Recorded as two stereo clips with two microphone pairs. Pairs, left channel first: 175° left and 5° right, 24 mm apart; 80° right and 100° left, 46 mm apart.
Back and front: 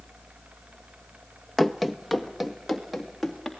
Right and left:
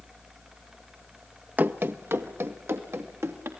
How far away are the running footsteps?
About 0.8 m.